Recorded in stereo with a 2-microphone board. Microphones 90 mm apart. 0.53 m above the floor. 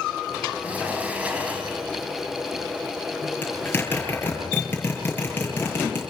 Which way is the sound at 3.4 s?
20° left (ahead or behind).